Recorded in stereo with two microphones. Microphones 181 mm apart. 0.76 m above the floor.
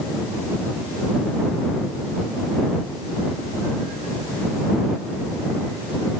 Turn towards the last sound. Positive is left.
No sound to turn to.